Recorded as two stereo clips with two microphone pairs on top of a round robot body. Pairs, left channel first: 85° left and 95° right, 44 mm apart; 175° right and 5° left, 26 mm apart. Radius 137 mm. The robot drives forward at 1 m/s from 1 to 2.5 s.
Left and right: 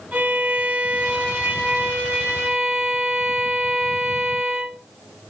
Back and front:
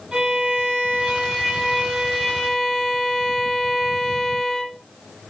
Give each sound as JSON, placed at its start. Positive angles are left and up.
{"t": 0.1, "sound": "a violin", "azimuth_deg": -35, "distance_m": 1.7}